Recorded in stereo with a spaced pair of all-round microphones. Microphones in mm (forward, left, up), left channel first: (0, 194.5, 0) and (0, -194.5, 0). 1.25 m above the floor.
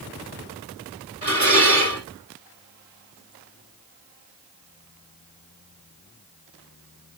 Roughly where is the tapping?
No tapping in this recording.